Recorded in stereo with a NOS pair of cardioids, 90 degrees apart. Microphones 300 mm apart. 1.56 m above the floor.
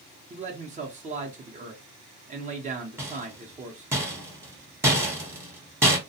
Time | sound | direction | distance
0.3 | a man speaking | 30° right | 0.7 m
3.0 | a rattle | 10° right | 1.0 m